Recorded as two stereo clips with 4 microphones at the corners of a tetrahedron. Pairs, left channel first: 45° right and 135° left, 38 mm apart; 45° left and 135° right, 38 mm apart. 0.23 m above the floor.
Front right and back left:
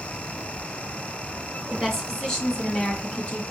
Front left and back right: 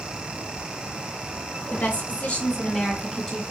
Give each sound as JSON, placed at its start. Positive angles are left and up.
{"t": 1.7, "sound": "a woman speaking", "azimuth_deg": 40, "distance_m": 2.0}